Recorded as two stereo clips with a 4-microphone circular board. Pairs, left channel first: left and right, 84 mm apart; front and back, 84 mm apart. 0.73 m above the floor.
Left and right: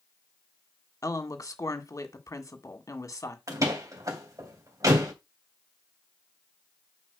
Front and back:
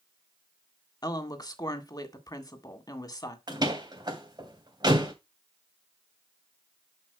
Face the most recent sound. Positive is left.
turn(degrees=-140)